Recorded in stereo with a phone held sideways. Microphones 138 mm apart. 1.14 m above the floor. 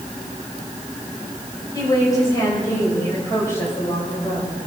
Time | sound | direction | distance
1.7 | a woman speaking | 25° left (ahead or behind) | 6.5 m